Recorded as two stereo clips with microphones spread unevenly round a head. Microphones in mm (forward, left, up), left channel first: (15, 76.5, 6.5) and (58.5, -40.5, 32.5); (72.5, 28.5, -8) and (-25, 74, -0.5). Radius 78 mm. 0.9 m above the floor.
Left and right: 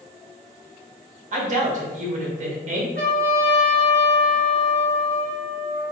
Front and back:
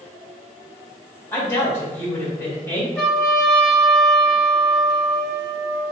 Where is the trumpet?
110° right, 1.0 m.